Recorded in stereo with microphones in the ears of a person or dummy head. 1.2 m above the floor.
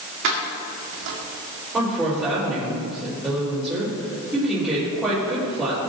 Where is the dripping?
I don't hear dripping.